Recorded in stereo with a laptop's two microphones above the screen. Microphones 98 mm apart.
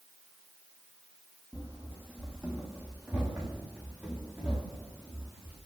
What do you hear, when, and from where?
1.5 s running footsteps: 10° right (ahead or behind), 1.4 m